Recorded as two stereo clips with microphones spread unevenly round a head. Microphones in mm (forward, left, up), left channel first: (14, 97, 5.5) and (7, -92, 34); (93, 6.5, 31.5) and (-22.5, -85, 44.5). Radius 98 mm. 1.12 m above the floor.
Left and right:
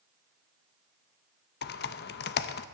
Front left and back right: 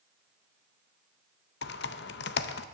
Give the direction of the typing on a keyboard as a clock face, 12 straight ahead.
10 o'clock.